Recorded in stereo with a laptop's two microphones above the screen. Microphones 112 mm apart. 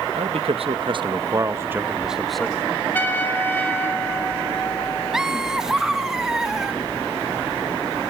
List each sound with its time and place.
0.1 s a man speaking: 75° right (ahead or behind), 1.0 m; by 2.8 s 10° left (ahead or behind), 1.1 m
2.9 s a trumpet: 20° left (ahead or behind), 3.5 m
5.1 s laughter: 5° right (ahead or behind), 1.1 m